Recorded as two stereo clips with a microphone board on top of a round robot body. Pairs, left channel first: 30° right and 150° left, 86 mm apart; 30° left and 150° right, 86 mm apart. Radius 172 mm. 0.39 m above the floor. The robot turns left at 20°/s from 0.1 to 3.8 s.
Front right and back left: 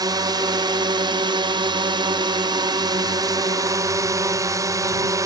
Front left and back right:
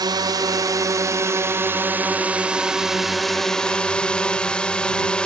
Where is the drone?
Straight behind; by 5.3 s 110° left.